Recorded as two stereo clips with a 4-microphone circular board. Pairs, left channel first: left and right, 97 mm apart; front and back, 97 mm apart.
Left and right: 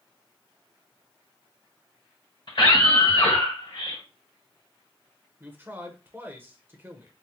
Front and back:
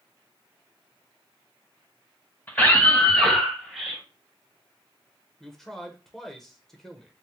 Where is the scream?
65° left, 2.5 m; by 4.0 s 100° left, 2.5 m.